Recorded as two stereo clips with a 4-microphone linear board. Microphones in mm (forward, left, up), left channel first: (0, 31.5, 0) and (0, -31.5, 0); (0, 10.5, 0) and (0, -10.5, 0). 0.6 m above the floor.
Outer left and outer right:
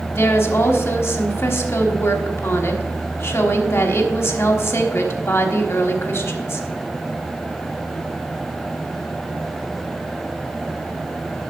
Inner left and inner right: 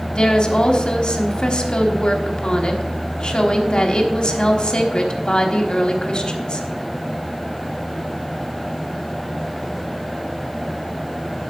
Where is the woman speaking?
45° left (ahead or behind), 1.2 m.